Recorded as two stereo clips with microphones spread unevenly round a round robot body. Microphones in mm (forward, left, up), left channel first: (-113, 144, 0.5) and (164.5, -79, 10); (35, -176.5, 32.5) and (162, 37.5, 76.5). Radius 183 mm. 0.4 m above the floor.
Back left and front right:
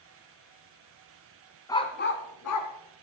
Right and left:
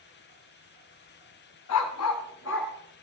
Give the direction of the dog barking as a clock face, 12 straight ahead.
5 o'clock.